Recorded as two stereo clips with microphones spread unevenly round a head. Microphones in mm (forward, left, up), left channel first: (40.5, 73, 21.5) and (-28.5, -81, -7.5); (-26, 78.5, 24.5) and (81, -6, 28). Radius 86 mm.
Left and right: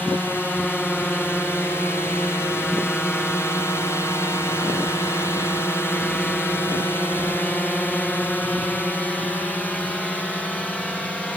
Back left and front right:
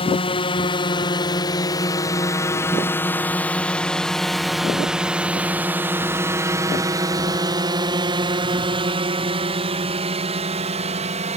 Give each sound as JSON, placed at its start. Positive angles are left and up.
{"t": 0.0, "sound": "a drone", "azimuth_deg": 150}